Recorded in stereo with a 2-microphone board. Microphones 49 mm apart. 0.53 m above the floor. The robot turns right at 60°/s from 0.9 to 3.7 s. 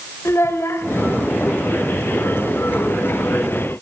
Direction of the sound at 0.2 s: 60° left (ahead or behind).